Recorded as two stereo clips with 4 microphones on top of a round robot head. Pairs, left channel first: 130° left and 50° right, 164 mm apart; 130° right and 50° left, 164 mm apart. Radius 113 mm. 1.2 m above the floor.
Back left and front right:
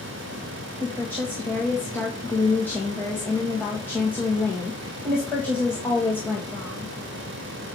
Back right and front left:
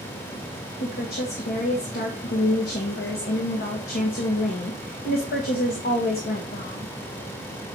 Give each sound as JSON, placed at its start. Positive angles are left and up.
{"t": 0.8, "sound": "a woman speaking", "azimuth_deg": -150, "distance_m": 1.6}